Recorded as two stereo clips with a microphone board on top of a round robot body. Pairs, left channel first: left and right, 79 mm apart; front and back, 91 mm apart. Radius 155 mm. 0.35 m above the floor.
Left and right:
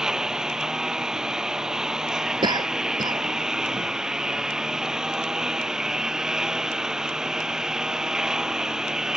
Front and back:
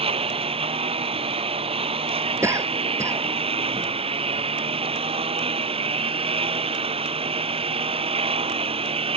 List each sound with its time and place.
0.0 s a lawn mower: 170° right
2.4 s a cough: 120° right